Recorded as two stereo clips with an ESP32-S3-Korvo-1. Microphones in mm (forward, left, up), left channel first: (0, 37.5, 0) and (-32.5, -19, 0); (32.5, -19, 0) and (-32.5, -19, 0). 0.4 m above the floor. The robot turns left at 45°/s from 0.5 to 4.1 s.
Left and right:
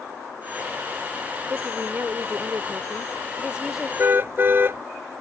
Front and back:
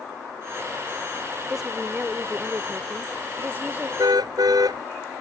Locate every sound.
1.5 s a woman speaking: 95° right; by 3.9 s 160° left
4.0 s a car horn: 170° right; by 4.8 s 175° right